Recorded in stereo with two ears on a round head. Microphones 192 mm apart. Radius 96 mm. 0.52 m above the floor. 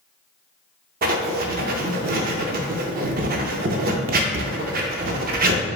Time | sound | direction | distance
1.0 | writing | 45° right (ahead or behind) | 0.5 m